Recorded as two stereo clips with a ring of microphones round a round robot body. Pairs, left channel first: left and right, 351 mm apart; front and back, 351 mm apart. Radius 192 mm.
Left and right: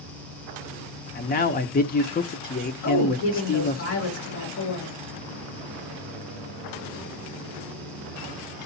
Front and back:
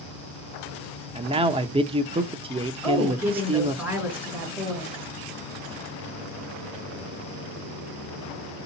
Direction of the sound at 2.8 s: 95° left.